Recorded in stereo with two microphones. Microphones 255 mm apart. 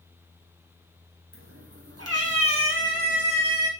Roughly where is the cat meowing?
Right.